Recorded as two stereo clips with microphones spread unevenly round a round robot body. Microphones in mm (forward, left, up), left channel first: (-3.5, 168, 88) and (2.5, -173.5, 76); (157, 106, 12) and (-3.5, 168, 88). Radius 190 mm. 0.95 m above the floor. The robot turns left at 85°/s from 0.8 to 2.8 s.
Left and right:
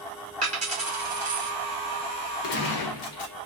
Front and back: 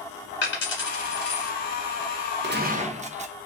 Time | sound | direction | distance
0.4 | a dropped coin | 25° right | 0.9 m
2.4 | a gunshot | 120° left | 0.6 m